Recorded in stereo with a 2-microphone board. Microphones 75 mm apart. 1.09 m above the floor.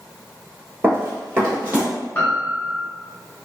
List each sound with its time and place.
0.8 s running footsteps: 30° right (ahead or behind), 1.2 m; by 1.9 s 20° right (ahead or behind), 1.5 m
2.1 s a piano: 20° left (ahead or behind), 0.7 m